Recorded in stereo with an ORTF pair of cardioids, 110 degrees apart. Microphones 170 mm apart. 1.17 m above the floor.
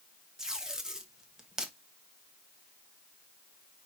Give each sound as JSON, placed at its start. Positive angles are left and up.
{"t": 0.4, "sound": "tape being pulled", "azimuth_deg": -5, "distance_m": 1.5}